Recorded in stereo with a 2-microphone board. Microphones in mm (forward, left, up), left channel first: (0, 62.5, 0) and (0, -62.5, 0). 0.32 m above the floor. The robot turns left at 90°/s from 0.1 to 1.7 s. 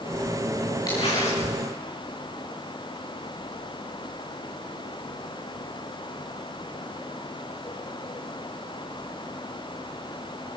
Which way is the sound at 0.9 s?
150° left.